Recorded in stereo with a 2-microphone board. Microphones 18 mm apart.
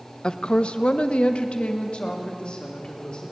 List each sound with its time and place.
0.2 s a woman speaking: 45° left (ahead or behind), 1.0 m; by 3.3 s 60° left (ahead or behind), 3.5 m